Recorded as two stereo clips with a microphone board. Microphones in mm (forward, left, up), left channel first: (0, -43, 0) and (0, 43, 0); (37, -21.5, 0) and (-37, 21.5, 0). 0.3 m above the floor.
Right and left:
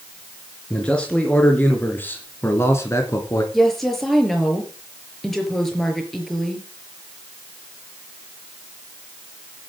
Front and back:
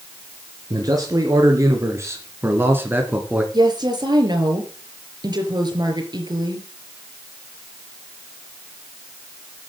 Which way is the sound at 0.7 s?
170° right.